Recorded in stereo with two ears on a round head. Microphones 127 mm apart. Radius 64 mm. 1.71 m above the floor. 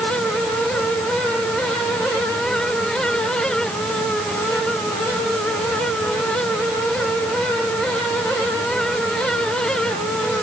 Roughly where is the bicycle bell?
I don't hear a bicycle bell.